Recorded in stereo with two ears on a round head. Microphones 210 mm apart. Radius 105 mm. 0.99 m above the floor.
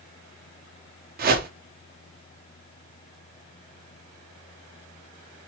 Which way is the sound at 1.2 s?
40° right (ahead or behind).